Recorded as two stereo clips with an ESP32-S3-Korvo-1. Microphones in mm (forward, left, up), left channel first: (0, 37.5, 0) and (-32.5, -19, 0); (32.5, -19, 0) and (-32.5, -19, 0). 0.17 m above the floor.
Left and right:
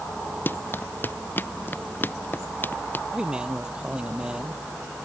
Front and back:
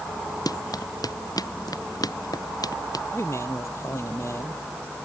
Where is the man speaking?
40° right.